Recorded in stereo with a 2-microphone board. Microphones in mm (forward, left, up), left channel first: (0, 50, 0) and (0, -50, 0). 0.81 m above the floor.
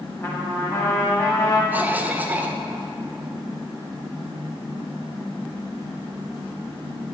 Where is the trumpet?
35° left (ahead or behind), 1.2 m.